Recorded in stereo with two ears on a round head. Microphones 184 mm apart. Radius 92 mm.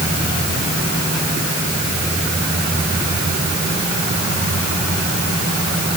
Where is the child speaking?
No child speaking in this recording.